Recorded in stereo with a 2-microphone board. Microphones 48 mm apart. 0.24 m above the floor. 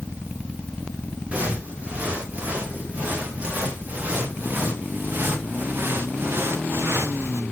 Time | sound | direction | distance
1.3 | footsteps | 20° right (ahead or behind) | 6 m